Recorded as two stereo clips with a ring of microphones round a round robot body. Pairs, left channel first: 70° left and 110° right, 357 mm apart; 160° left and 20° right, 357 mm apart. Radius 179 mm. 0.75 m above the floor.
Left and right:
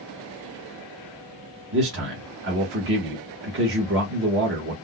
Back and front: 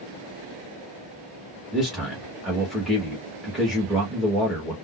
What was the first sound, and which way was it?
A man speaking, 110° right.